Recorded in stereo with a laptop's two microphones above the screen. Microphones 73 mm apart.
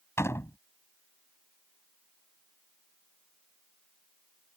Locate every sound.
0.2 s a door slam: 35° left (ahead or behind)